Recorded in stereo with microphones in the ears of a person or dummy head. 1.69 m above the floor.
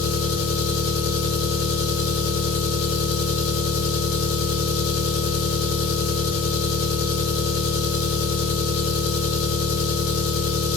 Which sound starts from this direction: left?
An engine running, at 0.0 s.